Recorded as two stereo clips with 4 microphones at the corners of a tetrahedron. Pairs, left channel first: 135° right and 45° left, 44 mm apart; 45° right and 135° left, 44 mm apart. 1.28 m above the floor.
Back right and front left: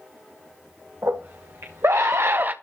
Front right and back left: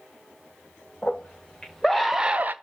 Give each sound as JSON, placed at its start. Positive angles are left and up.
{"t": 1.0, "sound": "a scream", "azimuth_deg": 25, "distance_m": 1.8}